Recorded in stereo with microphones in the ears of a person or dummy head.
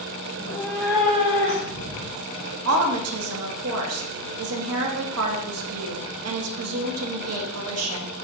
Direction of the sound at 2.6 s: 75° right (ahead or behind).